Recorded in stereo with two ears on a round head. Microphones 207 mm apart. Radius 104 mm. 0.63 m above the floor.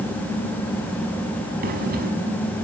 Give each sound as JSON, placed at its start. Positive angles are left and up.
{"t": 1.6, "sound": "breathing", "side_deg": -45, "distance_m": 5.5}